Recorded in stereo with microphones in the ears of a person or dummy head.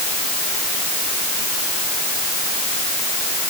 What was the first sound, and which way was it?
Only background noise.